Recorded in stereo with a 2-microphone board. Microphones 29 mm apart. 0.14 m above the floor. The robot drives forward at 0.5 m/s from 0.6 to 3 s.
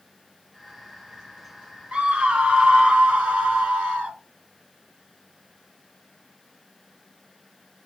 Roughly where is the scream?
Right.